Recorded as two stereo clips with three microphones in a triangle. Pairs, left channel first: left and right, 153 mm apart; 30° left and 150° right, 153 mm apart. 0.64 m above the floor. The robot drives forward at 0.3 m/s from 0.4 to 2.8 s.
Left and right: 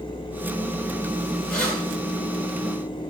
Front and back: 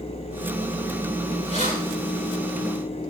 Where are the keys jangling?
175° left, 6.5 m.